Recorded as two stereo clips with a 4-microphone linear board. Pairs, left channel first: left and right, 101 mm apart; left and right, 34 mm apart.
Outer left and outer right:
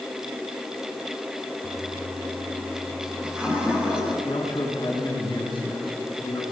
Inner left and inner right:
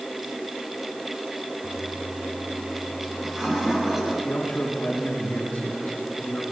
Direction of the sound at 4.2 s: 50° left (ahead or behind).